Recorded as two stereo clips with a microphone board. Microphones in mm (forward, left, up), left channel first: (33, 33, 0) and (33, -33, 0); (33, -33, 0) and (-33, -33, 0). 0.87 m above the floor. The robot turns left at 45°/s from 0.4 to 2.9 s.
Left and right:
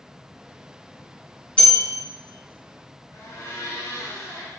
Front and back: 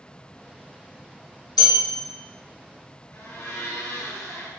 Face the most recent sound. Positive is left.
turn(degrees=50)